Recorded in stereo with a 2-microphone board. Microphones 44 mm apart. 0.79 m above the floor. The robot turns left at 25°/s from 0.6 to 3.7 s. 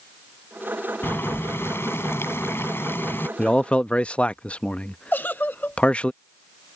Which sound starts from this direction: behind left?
Boiling, at 1.0 s.